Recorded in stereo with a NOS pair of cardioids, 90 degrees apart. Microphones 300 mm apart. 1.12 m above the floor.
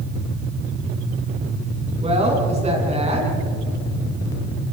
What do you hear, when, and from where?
2.0 s a woman speaking: 20° right, 9.5 m